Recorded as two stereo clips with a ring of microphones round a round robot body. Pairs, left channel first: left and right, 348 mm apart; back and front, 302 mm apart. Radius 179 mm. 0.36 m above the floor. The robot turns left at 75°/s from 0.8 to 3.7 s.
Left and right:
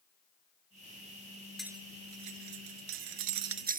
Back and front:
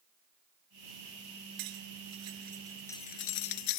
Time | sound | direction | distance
1.6 | cutlery clinking | straight ahead | ?